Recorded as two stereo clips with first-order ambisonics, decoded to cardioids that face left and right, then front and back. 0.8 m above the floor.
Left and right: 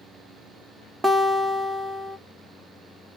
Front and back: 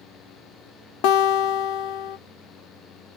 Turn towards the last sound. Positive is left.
turn(degrees=-5)